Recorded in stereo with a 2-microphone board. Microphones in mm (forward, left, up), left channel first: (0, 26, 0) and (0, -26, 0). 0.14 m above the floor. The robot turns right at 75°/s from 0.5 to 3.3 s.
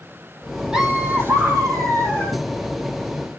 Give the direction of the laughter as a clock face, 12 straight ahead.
6 o'clock.